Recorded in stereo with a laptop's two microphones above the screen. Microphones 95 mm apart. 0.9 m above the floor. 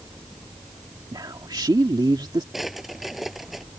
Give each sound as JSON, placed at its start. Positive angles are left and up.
{"t": 1.1, "sound": "a man speaking", "side_deg": -50}
{"t": 2.5, "sound": "a drawer", "side_deg": 0}